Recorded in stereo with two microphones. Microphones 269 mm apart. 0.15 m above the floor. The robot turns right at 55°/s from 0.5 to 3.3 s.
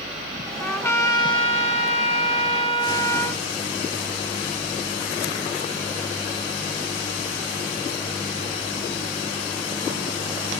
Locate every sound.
0.6 s a trumpet: 5° left (ahead or behind), 0.7 m; by 3.4 s 10° left (ahead or behind), 0.7 m